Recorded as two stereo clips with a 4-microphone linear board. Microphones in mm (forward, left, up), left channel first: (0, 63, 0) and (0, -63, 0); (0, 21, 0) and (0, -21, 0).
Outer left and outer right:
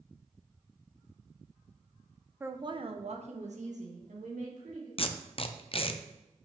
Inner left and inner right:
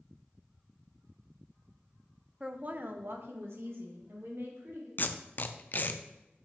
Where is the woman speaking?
15° right (ahead or behind), 0.6 m; by 4.9 s 80° right, 3 m.